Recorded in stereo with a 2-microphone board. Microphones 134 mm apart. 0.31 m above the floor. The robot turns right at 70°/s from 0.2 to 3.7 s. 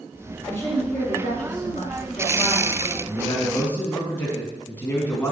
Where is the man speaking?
120° left, 3 m; by 5.3 s 165° left, 3 m.